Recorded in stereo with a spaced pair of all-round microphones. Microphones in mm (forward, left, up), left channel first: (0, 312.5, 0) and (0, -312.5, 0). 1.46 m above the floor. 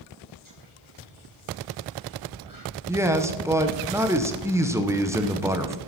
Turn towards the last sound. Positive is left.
turn(degrees=-5)  # may be behind; listen again after turning